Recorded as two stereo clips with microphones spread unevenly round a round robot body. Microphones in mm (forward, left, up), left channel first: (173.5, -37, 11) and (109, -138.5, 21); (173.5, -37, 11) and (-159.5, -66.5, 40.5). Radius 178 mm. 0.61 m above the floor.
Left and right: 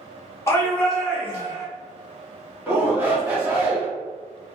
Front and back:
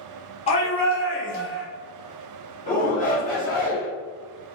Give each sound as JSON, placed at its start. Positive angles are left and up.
{"t": 0.5, "sound": "a shout", "azimuth_deg": 40, "distance_m": 1.1}
{"t": 2.7, "sound": "a shout", "azimuth_deg": -50, "distance_m": 1.7}